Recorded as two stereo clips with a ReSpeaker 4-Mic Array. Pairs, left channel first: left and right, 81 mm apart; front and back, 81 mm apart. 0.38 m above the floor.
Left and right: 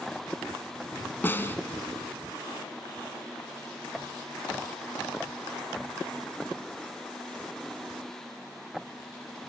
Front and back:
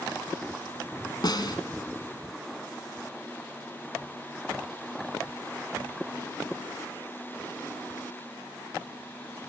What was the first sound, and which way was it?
A snare drum, 25° left.